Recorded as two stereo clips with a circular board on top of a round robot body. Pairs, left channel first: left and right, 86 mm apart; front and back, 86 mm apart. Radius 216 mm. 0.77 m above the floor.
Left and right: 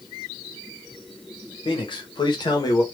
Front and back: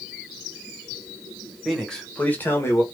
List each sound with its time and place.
1.6 s a man speaking: 90° left, 1.6 m; by 2.8 s 50° left, 1.3 m